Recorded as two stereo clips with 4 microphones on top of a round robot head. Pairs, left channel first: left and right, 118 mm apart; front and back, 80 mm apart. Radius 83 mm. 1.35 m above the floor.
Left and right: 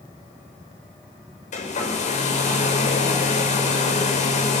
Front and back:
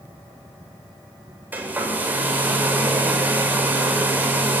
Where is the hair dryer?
110° left, 7.5 m.